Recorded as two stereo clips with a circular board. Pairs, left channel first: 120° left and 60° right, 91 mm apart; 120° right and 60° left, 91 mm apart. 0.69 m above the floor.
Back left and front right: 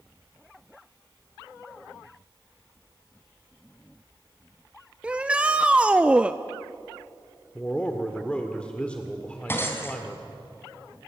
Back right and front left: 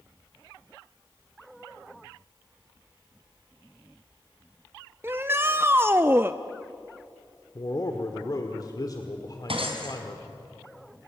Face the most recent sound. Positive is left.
turn(degrees=55)